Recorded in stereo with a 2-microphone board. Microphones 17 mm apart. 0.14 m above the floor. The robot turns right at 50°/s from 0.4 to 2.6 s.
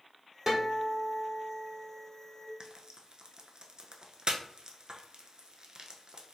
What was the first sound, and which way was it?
A guitar, 25° right.